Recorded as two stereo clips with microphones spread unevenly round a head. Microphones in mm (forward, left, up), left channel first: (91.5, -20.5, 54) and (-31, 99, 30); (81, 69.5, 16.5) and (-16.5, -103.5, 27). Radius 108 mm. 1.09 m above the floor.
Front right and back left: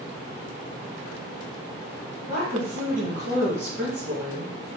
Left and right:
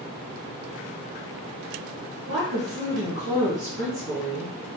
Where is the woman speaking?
175° right, 1.9 m.